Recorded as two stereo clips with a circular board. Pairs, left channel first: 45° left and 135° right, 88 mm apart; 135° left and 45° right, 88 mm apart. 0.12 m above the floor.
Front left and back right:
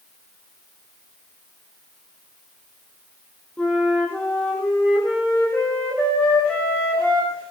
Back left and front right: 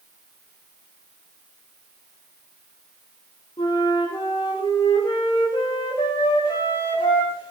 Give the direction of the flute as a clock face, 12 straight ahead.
8 o'clock.